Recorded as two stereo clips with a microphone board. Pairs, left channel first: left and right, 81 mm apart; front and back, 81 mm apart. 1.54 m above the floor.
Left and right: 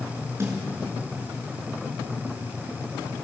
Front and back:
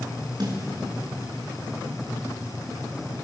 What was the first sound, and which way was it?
A snare drum, 145° right.